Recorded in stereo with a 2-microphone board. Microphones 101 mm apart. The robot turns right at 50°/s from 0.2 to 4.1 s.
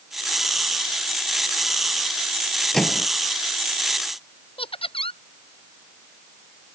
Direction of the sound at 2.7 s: 5° left (ahead or behind).